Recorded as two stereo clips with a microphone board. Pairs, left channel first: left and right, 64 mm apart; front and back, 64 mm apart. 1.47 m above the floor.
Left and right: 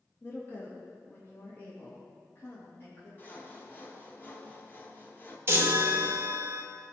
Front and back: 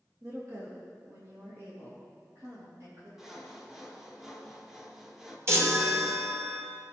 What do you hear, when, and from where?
0.2 s a woman speaking: 140° left, 1.3 m
3.2 s sawing: 100° left, 1.2 m
5.5 s a chime: 140° right, 1.2 m